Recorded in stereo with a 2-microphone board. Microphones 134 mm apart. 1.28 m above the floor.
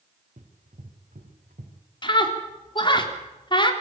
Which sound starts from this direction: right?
Running footsteps, at 0.4 s.